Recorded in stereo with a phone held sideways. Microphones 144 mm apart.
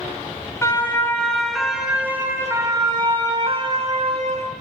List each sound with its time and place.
0.6 s a siren: 20° left (ahead or behind), 2 m; by 4.5 s 50° right (ahead or behind), 2.5 m